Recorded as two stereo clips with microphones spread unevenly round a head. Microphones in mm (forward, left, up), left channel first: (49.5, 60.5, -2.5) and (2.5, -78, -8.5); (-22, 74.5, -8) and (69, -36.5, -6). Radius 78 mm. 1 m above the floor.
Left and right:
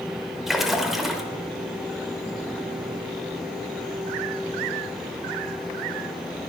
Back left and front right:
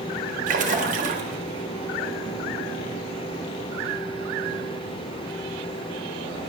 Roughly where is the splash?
Ahead.